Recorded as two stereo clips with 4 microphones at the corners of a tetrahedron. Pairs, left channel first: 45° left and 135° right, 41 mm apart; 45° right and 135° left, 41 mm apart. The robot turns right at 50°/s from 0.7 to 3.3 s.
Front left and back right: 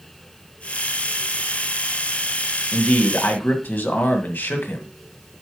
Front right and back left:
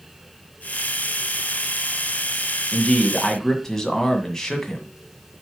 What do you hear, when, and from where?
2.7 s a man speaking: straight ahead, 1.6 m; by 4.8 s 30° left, 1.6 m